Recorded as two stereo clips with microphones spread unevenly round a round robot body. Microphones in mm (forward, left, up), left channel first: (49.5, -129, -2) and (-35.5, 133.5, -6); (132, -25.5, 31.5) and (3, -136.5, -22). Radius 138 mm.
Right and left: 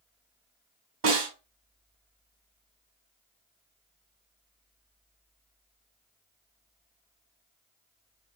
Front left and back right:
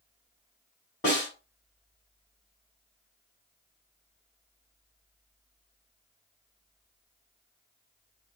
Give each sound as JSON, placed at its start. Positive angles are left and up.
{"t": 1.0, "sound": "a snare drum", "azimuth_deg": 125, "distance_m": 3.0}